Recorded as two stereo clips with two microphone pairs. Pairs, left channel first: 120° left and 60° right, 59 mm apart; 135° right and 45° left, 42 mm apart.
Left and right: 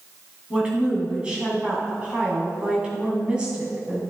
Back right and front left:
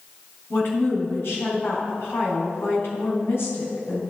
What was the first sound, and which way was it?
A woman speaking, 130° right.